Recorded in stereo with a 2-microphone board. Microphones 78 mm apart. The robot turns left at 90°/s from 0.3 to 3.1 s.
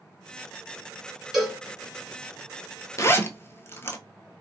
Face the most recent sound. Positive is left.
turn(degrees=35)  # may be behind; listen again after turning